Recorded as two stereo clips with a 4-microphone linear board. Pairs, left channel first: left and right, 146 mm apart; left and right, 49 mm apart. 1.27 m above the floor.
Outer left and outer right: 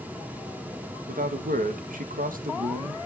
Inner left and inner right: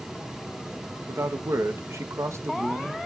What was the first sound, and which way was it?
A man speaking, 75° right (ahead or behind).